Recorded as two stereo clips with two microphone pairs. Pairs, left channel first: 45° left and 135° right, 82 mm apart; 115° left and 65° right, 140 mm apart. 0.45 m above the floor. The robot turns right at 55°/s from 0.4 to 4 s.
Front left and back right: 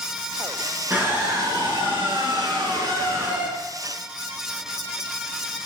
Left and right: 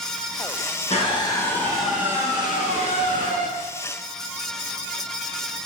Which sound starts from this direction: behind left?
A scream, at 0.9 s.